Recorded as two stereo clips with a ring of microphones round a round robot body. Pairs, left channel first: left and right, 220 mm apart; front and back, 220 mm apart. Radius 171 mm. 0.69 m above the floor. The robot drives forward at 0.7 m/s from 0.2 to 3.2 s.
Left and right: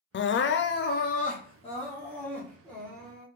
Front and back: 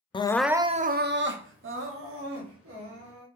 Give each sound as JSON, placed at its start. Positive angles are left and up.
{"t": 0.1, "sound": "crying", "azimuth_deg": 70, "distance_m": 0.5}